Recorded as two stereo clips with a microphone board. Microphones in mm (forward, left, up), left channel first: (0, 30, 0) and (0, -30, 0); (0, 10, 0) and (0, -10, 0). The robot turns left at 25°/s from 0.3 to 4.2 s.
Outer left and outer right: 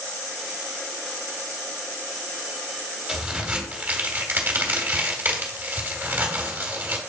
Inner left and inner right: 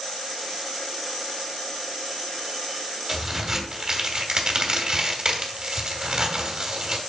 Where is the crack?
10° right (ahead or behind), 1.6 m; by 7.0 s 30° right (ahead or behind), 1.6 m.